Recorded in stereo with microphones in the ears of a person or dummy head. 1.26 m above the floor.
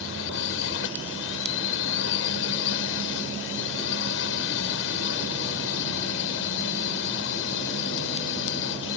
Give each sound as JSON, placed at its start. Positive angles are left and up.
{"t": 0.0, "sound": "a drone", "side_deg": 65}